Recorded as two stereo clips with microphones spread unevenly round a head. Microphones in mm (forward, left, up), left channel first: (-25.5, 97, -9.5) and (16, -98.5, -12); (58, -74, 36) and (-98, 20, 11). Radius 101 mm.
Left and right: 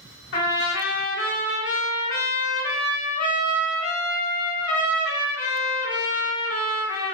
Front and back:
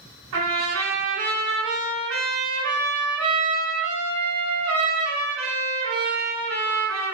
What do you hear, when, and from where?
0.3 s a trumpet: 125° left, 1.9 m